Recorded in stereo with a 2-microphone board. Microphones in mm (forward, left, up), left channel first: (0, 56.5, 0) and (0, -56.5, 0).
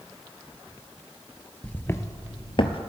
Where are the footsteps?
10° left (ahead or behind), 0.7 m; by 2.8 s 55° left (ahead or behind), 0.9 m.